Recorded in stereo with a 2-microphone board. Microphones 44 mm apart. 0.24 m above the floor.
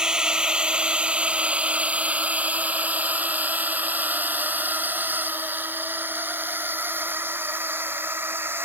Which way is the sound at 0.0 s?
20° right (ahead or behind).